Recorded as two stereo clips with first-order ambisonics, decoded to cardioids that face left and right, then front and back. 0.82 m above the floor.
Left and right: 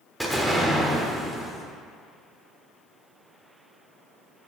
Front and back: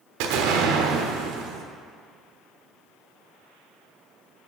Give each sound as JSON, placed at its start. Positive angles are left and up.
{"t": 0.2, "sound": "an explosion", "azimuth_deg": 180, "distance_m": 1.2}